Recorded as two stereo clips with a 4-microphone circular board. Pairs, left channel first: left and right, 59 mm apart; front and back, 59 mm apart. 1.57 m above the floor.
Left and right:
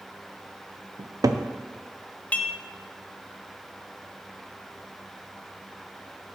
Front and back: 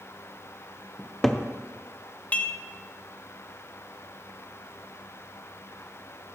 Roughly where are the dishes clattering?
Ahead left.